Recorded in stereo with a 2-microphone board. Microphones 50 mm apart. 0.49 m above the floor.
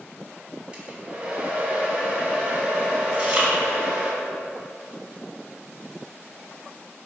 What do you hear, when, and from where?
0.7 s a hair dryer: 20° right (ahead or behind), 2 m
3.1 s chewing: 20° right (ahead or behind), 2.5 m